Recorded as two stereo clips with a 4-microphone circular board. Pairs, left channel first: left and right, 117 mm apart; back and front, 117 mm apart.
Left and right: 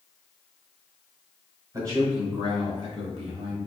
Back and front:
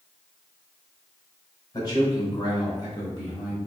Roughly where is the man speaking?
Behind right.